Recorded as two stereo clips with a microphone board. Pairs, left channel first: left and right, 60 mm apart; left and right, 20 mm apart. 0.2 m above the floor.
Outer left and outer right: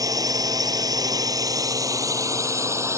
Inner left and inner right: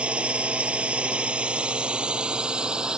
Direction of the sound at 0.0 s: 65° right (ahead or behind).